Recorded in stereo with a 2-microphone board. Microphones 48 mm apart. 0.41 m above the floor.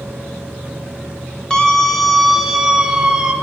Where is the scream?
15° left (ahead or behind), 1.8 m; by 3.3 s 20° right (ahead or behind), 2.5 m.